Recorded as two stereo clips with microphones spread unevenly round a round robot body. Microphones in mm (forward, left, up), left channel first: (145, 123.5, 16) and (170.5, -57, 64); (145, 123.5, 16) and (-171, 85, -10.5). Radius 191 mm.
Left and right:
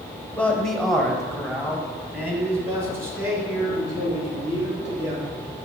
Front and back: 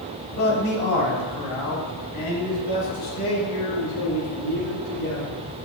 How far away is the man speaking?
About 1.4 m.